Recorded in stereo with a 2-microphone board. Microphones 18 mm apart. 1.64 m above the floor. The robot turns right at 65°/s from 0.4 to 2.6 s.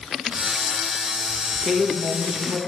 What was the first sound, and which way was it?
A woman speaking, 30° left.